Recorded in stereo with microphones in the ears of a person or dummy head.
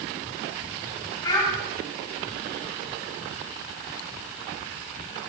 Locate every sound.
1.2 s a child speaking: 20° left (ahead or behind), 3.5 m